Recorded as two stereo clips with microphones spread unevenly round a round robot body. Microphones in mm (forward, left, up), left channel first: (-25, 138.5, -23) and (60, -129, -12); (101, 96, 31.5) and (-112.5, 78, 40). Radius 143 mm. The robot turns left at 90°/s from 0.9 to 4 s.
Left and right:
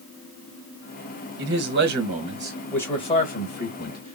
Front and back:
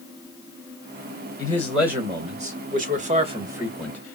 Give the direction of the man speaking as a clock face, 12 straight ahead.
2 o'clock.